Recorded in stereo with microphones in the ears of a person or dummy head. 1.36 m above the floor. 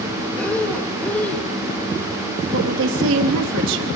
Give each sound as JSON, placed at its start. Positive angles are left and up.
{"t": 0.4, "sound": "breathing", "side_deg": 10, "distance_m": 1.5}
{"t": 2.5, "sound": "a woman speaking", "side_deg": -75, "distance_m": 3.0}